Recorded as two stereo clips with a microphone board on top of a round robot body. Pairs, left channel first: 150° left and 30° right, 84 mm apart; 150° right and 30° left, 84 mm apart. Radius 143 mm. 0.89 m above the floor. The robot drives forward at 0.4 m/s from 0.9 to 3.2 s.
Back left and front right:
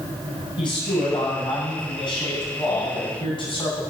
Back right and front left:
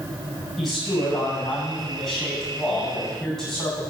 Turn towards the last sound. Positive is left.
turn(degrees=125)